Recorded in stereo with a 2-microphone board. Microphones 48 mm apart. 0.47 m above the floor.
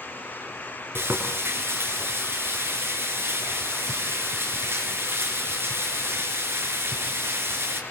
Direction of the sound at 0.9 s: 55° right (ahead or behind).